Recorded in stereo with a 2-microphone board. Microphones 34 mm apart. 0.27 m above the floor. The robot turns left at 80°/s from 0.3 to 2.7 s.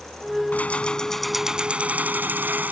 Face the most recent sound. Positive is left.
turn(degrees=-115)